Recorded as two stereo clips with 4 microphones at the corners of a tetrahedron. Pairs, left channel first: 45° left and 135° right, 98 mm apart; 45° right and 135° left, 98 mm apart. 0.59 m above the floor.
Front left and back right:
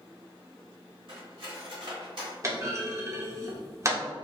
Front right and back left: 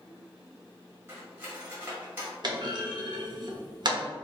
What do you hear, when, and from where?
1.1 s cutlery clinking: 160° right, 1.6 m
2.4 s a clunk: 170° left, 0.8 m